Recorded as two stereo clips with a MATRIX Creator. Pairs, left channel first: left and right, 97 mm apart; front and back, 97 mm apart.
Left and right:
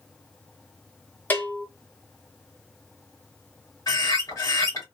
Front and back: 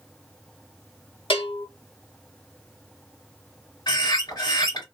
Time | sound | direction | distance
1.3 | a bell | 20° left | 1.5 m
3.9 | a bird | 40° left | 2.5 m